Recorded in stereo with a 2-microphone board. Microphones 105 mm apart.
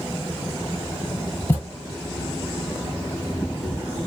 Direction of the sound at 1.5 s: 20° left (ahead or behind).